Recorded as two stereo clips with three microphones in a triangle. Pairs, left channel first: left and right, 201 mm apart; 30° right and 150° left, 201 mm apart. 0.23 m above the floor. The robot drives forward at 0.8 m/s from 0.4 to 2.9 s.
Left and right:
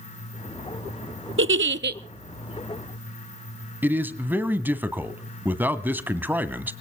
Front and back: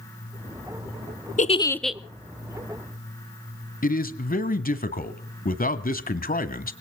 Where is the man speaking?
10° right, 1.4 m.